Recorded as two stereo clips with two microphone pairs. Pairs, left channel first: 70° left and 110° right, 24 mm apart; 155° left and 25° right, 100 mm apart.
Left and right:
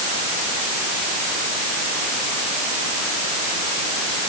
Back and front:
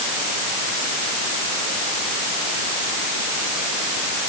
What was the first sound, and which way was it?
Only background noise.